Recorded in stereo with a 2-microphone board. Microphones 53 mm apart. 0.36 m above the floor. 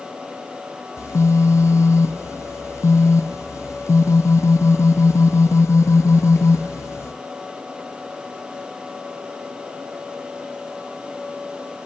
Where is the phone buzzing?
70° left (ahead or behind), 0.6 m.